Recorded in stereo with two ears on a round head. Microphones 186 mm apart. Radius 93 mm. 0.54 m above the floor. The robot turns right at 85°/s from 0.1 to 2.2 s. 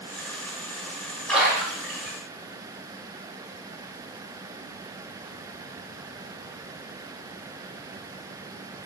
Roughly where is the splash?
Centre.